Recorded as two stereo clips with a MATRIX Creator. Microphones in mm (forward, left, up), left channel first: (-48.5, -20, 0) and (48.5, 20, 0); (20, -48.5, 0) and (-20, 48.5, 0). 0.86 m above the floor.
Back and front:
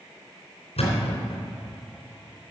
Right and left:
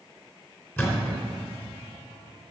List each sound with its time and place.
0.8 s a thud: 135° right, 3.5 m